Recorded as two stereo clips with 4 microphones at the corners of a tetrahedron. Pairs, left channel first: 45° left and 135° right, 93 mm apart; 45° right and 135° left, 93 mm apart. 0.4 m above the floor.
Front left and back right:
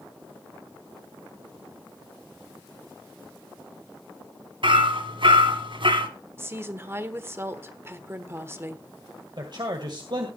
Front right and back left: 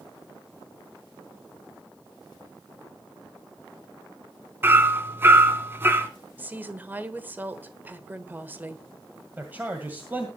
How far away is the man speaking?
About 1.9 m.